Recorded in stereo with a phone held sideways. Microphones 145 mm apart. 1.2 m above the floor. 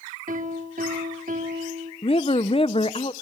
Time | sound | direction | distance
0.3 | a piano | 70° right (ahead or behind) | 3.5 m
2.0 | a woman speaking | 40° left (ahead or behind) | 0.8 m